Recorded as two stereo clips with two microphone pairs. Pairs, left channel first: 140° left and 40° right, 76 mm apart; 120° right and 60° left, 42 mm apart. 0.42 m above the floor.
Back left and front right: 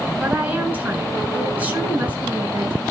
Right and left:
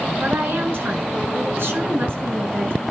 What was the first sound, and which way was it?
A woman speaking, 30° left.